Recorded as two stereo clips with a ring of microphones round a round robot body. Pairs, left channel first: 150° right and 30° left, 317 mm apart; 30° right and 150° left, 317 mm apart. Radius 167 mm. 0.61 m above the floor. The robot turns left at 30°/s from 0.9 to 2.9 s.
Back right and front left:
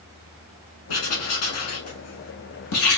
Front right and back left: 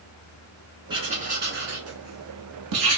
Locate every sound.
0.9 s writing: 135° right, 1.1 m; by 3.0 s 165° left, 1.1 m